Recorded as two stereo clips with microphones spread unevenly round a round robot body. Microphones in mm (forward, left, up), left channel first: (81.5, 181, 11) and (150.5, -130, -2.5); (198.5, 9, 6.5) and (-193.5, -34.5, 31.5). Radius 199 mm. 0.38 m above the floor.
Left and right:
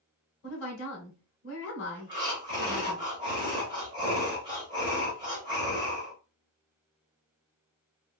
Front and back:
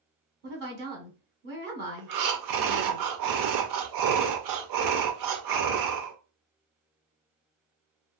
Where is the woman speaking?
135° left, 1.2 m.